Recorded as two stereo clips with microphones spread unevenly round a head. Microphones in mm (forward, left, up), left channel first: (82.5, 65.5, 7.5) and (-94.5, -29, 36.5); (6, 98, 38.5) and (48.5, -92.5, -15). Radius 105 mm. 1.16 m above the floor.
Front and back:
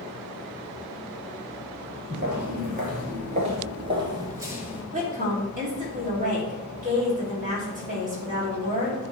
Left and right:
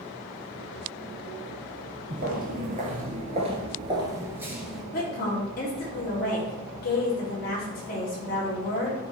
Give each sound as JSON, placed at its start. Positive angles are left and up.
{"t": 2.1, "sound": "footsteps", "azimuth_deg": -130, "distance_m": 1.9}
{"t": 4.9, "sound": "a woman speaking", "azimuth_deg": 155, "distance_m": 3.0}